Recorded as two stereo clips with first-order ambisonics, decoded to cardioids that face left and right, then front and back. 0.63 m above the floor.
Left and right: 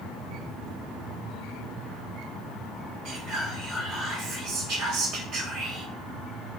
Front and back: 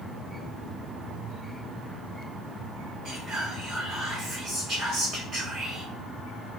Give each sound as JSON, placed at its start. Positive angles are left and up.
{"t": 3.0, "sound": "whispering", "azimuth_deg": -125, "distance_m": 2.0}